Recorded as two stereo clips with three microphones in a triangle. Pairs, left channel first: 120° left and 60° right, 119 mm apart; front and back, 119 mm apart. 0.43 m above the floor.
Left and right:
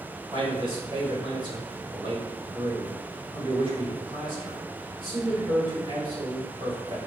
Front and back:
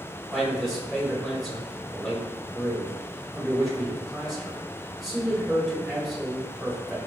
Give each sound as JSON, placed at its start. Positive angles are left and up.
{"t": 0.3, "sound": "a man speaking", "azimuth_deg": -90, "distance_m": 1.8}